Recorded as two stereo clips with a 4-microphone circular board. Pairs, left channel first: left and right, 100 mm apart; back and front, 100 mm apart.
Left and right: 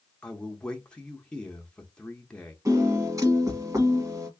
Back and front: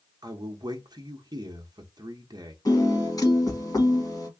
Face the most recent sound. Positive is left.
turn(degrees=-140)